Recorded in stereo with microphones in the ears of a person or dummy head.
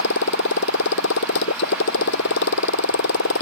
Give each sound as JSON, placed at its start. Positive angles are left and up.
{"t": 0.0, "sound": "a motorcycle", "side_deg": 75}